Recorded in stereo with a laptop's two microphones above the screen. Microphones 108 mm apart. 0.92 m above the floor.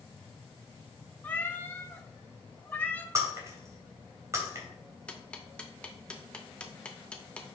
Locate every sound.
1.2 s a cat meowing: 15° left (ahead or behind), 1.0 m
3.1 s breaking glass: 30° right (ahead or behind), 2.5 m
5.1 s ticking: 10° left (ahead or behind), 1.1 m